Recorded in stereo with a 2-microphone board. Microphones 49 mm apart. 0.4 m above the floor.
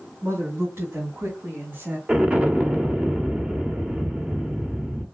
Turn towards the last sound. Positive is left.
turn(degrees=-25)  # may be behind; listen again after turning